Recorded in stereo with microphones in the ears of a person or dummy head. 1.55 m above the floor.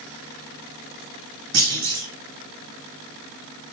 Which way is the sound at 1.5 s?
85° right.